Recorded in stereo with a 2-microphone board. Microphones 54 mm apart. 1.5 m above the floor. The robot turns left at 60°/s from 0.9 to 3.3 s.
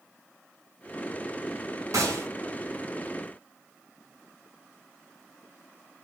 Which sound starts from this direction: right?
A gunshot, at 1.9 s.